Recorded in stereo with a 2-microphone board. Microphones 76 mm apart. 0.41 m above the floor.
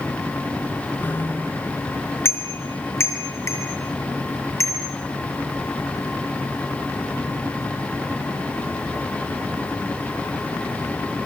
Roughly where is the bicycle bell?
Left.